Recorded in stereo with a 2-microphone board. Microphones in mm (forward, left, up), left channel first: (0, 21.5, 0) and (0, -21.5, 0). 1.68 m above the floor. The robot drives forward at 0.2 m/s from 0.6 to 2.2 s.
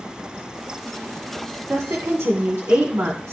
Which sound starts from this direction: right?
A woman speaking, at 1.7 s.